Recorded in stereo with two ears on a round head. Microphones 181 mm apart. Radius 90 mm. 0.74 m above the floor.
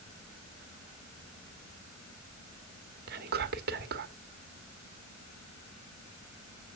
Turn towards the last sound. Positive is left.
turn(degrees=-50)  # may be behind; listen again after turning